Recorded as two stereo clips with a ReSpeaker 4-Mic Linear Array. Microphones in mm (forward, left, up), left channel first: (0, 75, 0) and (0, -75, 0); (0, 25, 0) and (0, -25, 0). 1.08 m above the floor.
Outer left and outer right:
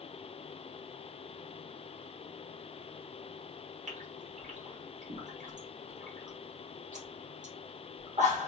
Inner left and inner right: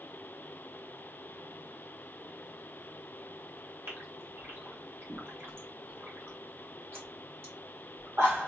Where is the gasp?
60° right (ahead or behind), 1.5 m.